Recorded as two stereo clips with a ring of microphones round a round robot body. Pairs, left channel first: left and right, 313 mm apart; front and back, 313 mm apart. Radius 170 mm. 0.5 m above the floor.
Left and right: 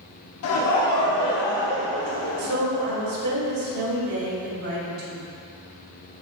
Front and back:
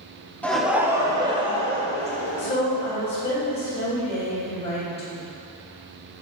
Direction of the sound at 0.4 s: 85° left.